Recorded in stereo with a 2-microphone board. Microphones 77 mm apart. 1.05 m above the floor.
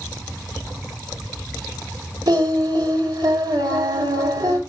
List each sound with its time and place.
2.3 s singing: 60° right (ahead or behind), 3 m